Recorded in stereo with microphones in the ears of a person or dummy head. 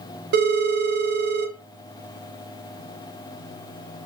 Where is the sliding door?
I don't hear a sliding door.